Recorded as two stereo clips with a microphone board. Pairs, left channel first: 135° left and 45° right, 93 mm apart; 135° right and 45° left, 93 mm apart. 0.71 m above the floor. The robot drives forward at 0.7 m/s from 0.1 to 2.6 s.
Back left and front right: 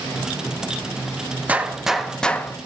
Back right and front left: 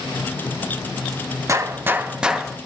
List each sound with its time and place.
1.5 s a gunshot: 15° left, 0.9 m; by 2.6 s 145° left, 0.8 m